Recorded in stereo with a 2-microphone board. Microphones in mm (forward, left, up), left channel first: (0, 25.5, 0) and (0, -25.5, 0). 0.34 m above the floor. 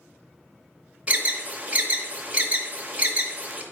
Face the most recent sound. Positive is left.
turn(degrees=-30)  # may be behind; listen again after turning